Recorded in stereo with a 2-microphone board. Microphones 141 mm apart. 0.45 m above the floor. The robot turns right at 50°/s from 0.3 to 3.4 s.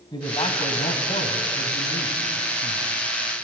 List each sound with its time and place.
0.1 s a man speaking: 35° left, 3 m; by 2.9 s 160° left, 3 m